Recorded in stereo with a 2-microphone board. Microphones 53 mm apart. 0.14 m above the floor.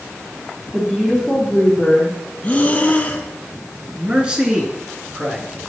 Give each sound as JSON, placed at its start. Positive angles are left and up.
{"t": 0.7, "sound": "a woman speaking", "side_deg": -15, "distance_m": 3.5}
{"t": 2.4, "sound": "breathing", "side_deg": 30, "distance_m": 1.0}
{"t": 4.0, "sound": "a man speaking", "side_deg": -20, "distance_m": 1.6}